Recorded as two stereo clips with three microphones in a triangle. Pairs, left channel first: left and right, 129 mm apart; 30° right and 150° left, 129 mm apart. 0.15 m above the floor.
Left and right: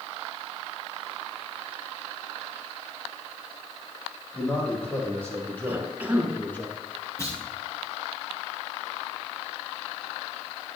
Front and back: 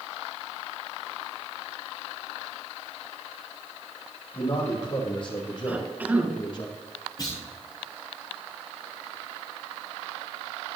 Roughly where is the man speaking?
Ahead.